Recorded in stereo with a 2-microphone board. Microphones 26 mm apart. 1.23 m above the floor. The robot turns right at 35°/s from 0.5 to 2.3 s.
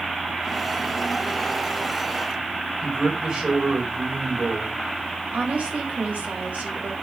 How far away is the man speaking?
About 4.5 m.